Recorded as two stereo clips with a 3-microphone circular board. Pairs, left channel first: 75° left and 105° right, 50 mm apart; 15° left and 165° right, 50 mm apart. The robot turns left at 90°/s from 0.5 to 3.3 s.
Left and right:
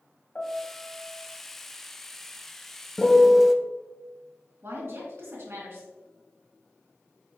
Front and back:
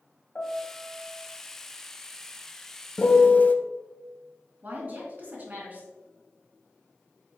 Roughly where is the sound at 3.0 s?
Ahead.